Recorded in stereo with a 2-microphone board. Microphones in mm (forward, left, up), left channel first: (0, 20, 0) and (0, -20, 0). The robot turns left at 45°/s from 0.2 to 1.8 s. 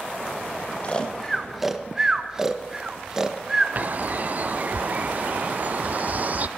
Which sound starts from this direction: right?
A bird, at 3.8 s.